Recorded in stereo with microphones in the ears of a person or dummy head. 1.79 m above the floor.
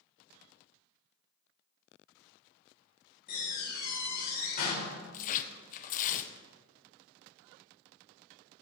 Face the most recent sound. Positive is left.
turn(degrees=50)  # may be behind; listen again after turning